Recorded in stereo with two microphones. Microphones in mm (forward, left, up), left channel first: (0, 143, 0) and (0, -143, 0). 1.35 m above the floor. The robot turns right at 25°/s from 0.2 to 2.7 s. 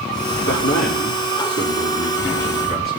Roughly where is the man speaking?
Left.